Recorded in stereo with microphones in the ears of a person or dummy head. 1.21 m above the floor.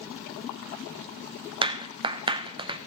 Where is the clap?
25° right (ahead or behind), 0.7 m.